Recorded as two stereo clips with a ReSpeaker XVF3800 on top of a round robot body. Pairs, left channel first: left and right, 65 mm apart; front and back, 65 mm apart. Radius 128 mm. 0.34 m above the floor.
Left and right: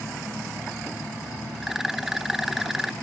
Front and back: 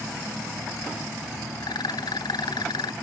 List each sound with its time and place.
1.6 s a rattle: 5° right